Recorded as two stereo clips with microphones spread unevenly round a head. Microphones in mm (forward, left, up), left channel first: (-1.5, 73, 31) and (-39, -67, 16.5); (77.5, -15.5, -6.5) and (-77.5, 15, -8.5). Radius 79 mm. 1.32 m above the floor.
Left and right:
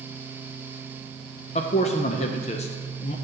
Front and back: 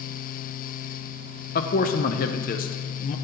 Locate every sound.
1.6 s a man speaking: 25° left, 0.5 m